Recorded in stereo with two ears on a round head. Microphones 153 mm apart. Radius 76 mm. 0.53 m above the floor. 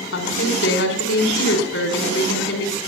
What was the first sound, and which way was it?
A woman speaking, 80° left.